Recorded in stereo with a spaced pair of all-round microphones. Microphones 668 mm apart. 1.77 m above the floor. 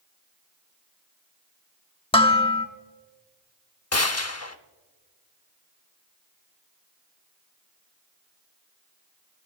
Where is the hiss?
No hiss in this recording.